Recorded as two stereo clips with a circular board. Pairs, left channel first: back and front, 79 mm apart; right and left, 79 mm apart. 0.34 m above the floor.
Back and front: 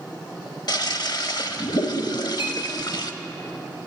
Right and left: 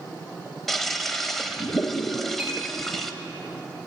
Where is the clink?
165° left, 6.5 m.